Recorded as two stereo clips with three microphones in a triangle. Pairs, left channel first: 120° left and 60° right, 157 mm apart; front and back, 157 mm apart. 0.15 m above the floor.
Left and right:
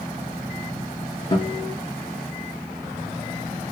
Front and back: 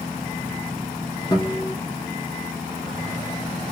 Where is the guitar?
60° left, 0.7 m.